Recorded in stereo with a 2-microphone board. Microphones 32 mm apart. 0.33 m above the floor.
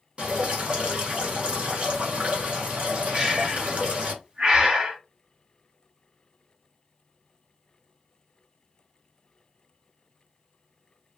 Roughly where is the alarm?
No alarm in this recording.